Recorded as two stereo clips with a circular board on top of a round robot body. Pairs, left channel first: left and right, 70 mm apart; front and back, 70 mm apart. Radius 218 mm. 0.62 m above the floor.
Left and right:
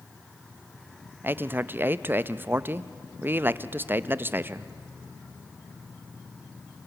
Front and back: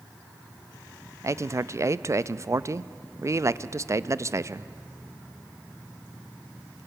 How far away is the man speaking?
About 0.7 m.